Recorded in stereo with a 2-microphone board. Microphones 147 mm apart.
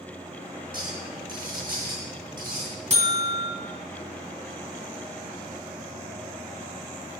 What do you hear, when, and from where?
0.7 s a clink: 65° right (ahead or behind), 7.5 m
2.9 s a buzzer: 50° right (ahead or behind), 2 m